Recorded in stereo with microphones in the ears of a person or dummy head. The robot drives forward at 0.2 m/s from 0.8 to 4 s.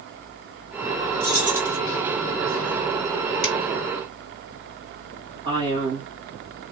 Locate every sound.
1.2 s keys jangling: 15° left (ahead or behind), 1.2 m
3.4 s a finger snap: 65° left (ahead or behind), 1.9 m
5.5 s a man speaking: 25° right (ahead or behind), 1.9 m